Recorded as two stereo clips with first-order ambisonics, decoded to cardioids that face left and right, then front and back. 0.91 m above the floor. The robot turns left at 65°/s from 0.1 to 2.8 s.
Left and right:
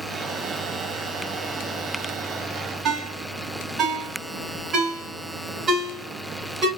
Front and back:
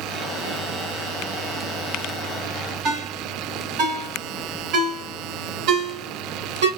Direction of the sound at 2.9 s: 155° right.